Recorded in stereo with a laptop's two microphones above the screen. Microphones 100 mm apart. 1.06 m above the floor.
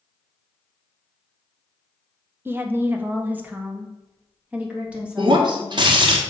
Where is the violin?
I don't hear a violin.